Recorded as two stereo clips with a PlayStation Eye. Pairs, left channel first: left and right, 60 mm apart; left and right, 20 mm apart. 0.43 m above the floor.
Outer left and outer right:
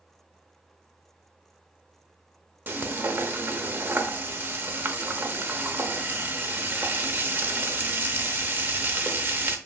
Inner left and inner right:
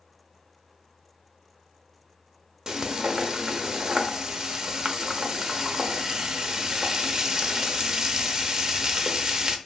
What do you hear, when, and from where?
2.7 s frying: 35° right (ahead or behind), 0.7 m